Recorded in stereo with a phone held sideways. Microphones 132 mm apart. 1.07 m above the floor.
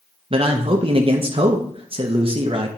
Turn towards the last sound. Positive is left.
turn(degrees=-45)  # may be behind; listen again after turning